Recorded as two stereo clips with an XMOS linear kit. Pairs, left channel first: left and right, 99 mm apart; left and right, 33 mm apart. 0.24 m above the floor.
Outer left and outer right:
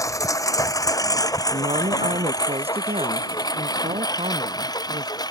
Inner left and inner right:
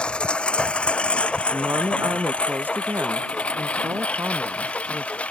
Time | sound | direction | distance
0.0 | a lawn mower | 30° left (ahead or behind) | ?
1.5 | a woman speaking | 80° right | ?